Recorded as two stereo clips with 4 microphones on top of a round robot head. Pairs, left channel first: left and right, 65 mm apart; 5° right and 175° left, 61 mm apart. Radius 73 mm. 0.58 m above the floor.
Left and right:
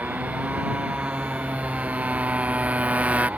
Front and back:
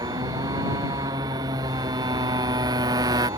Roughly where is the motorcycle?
Behind.